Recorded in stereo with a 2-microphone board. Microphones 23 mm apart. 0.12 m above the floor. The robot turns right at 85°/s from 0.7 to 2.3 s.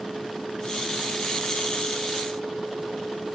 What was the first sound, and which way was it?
Only background noise.